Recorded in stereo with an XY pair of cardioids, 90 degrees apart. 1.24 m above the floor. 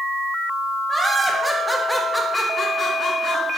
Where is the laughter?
25° right, 1.1 m; by 3.6 s 65° left, 1.1 m.